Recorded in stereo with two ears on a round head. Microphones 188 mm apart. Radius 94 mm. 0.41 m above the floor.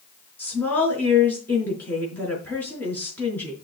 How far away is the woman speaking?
About 5 m.